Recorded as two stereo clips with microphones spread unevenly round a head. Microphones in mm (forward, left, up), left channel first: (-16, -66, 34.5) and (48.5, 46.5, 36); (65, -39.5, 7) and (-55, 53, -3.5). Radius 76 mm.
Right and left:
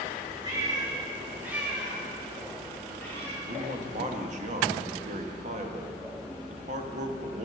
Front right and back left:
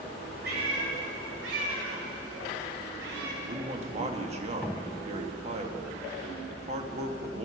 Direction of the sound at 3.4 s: 95° left.